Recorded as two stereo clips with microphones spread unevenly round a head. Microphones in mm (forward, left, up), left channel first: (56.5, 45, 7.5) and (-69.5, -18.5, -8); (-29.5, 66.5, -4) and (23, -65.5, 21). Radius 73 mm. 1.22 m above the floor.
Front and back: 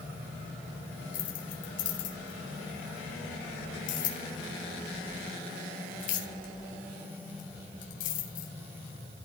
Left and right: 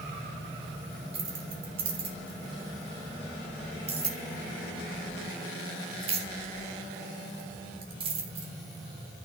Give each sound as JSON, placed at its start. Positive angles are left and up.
{"t": 1.1, "sound": "keys jangling", "azimuth_deg": -15, "distance_m": 3.5}